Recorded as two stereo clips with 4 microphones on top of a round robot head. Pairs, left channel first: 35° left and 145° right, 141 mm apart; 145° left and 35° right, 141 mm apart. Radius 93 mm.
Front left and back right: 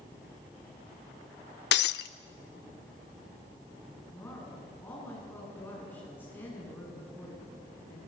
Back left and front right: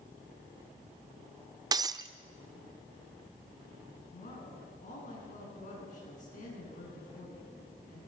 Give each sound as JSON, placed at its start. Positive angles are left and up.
{"t": 1.7, "sound": "breaking glass", "azimuth_deg": 30, "distance_m": 0.6}
{"t": 4.1, "sound": "a woman speaking", "azimuth_deg": 110, "distance_m": 9.0}